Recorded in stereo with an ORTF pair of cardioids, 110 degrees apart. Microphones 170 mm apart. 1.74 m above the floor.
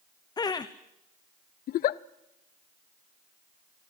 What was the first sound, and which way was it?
Laughter, 25° left.